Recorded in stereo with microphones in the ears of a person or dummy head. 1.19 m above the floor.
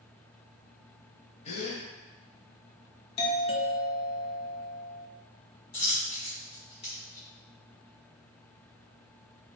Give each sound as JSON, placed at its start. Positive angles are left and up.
{"t": 1.4, "sound": "a gasp", "side_deg": 35, "distance_m": 0.9}
{"t": 3.2, "sound": "a doorbell", "side_deg": 25, "distance_m": 0.6}
{"t": 5.7, "sound": "a dropped coin", "side_deg": 30, "distance_m": 1.4}